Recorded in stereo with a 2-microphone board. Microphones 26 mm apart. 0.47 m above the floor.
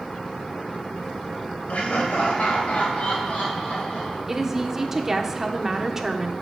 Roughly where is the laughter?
Left.